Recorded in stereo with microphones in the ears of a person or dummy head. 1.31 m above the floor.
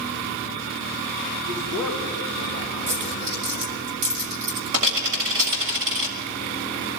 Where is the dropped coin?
50° right (ahead or behind), 1.7 m.